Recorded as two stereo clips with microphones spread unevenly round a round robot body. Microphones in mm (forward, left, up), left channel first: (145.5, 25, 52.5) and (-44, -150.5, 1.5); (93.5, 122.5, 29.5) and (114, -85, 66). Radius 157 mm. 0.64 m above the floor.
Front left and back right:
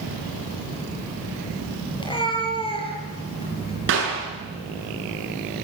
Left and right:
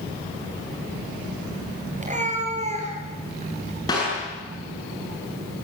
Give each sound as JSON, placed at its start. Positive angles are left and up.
{"t": 2.0, "sound": "a cat meowing", "azimuth_deg": -30, "distance_m": 6.5}
{"t": 3.9, "sound": "a clap", "azimuth_deg": 170, "distance_m": 8.5}